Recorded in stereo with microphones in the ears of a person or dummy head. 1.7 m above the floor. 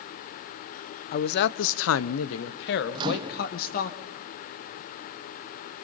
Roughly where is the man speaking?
Left.